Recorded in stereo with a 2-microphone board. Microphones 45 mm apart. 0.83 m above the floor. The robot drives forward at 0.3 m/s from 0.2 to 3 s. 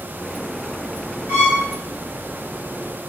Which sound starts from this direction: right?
A violin, at 1.3 s.